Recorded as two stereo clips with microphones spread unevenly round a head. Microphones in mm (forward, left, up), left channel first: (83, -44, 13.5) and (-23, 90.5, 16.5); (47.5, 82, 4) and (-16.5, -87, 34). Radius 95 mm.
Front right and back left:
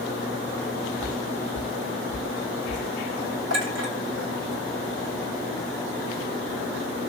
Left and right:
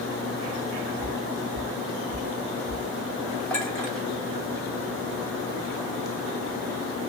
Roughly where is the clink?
Behind left.